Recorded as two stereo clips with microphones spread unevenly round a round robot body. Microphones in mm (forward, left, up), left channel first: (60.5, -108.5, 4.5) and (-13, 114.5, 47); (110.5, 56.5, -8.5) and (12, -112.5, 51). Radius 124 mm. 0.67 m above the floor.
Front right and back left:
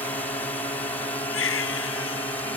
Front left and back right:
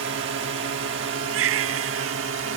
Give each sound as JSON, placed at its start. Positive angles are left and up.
{"t": 0.0, "sound": "a drone", "azimuth_deg": -140}
{"t": 1.3, "sound": "a baby crying", "azimuth_deg": -115}